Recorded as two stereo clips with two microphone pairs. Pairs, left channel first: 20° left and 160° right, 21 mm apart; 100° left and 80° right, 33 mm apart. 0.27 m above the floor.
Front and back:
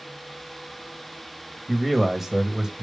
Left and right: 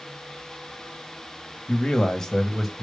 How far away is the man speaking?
About 1.6 m.